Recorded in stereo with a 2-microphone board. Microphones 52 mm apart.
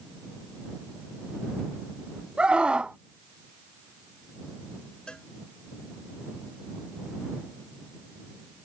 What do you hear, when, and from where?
2.4 s a scream: 20° right (ahead or behind)
5.1 s a cowbell: 20° left (ahead or behind)